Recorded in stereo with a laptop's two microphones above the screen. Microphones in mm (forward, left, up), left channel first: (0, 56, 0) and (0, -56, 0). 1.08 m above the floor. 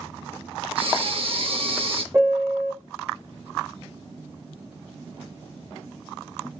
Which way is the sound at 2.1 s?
20° right (ahead or behind).